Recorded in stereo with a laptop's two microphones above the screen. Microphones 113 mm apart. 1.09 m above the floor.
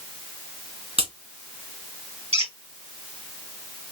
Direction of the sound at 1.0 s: 60° right (ahead or behind).